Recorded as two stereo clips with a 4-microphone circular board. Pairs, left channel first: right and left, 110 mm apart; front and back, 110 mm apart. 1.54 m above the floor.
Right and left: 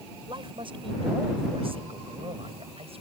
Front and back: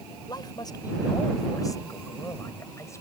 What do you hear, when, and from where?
0.3 s a man speaking: 50° left; by 3.0 s 65° left